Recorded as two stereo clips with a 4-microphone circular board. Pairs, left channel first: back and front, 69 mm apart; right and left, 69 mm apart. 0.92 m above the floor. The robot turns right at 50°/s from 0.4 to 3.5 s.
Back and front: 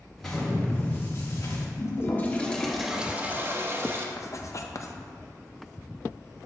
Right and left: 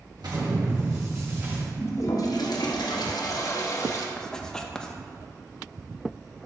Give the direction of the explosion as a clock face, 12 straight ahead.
9 o'clock.